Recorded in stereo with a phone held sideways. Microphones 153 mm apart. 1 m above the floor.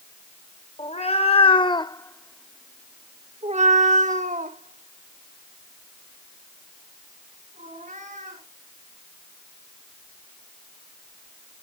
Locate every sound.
0.8 s a cat meowing: 50° left (ahead or behind), 1.3 m; by 8.4 s 60° right (ahead or behind), 4 m